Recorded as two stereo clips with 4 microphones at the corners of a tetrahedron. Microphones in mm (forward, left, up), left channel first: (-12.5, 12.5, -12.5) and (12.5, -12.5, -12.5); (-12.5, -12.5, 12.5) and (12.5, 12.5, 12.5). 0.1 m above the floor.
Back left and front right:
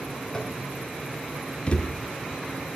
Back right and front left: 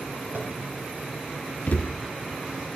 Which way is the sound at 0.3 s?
65° left.